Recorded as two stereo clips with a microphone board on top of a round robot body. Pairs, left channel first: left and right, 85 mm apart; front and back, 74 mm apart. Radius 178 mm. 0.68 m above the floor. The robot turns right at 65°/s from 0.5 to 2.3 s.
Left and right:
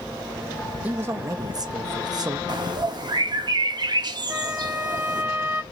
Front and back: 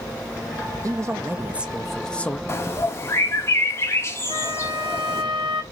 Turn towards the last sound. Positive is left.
turn(degrees=-160)